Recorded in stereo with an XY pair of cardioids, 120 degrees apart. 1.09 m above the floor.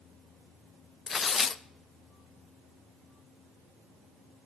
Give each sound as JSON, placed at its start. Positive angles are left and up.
{"t": 1.1, "sound": "tearing paper", "azimuth_deg": 35, "distance_m": 0.5}